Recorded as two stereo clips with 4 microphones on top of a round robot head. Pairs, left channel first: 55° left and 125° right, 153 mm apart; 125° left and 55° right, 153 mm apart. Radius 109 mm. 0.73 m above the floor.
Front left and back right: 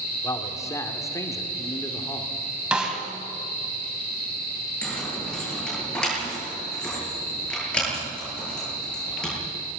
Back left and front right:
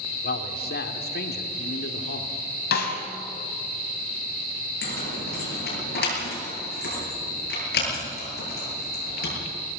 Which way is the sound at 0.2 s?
125° left.